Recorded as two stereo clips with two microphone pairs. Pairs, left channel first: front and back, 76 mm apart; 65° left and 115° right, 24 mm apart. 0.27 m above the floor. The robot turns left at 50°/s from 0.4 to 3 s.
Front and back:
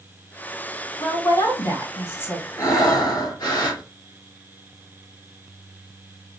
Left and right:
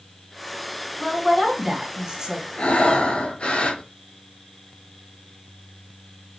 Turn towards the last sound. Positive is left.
turn(degrees=20)